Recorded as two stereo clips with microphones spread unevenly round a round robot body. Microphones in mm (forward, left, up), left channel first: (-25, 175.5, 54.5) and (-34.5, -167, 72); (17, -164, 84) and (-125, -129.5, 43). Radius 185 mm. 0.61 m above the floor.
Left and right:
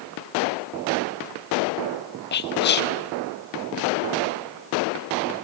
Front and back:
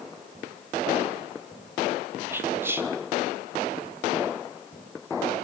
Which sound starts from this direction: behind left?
Whispering, at 2.3 s.